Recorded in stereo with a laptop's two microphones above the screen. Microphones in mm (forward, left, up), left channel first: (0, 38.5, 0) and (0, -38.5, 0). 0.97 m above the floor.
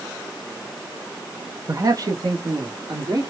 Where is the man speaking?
40° right (ahead or behind), 0.5 m; by 3.3 s 55° right (ahead or behind), 2 m.